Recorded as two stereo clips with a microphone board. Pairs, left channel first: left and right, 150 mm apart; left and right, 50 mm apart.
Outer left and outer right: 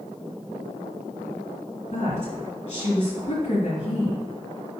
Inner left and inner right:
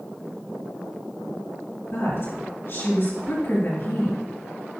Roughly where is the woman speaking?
Left.